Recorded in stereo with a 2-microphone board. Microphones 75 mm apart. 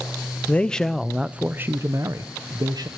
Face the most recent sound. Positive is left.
turn(degrees=-65)  # may be behind; listen again after turning